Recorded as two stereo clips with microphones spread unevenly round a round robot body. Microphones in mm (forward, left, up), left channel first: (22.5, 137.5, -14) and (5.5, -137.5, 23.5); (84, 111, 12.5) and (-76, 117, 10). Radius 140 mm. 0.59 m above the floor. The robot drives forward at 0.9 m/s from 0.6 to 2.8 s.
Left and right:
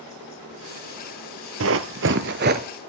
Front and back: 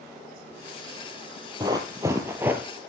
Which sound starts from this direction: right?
Running footsteps, at 1.6 s.